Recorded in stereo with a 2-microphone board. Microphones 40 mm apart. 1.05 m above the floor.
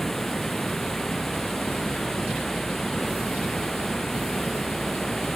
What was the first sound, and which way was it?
Running water, 5° left (ahead or behind).